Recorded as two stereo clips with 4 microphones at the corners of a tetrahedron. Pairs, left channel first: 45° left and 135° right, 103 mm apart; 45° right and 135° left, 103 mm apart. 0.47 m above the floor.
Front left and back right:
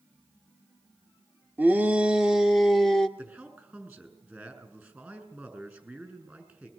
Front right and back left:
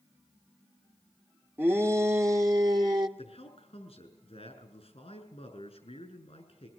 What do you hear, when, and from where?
1.6 s a shout: 175° left, 1.5 m; by 3.1 s 130° left, 1.7 m
3.2 s a man speaking: 65° right, 7 m